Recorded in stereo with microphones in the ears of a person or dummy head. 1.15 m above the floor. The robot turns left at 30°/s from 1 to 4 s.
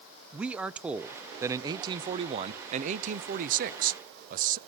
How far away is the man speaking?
About 0.7 m.